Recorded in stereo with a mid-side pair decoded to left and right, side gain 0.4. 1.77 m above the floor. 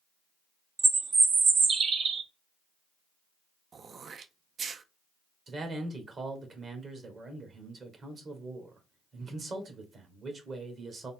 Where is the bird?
55° right, 0.9 m.